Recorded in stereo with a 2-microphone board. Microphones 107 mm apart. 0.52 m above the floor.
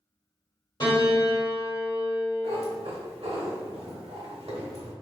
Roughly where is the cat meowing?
Right.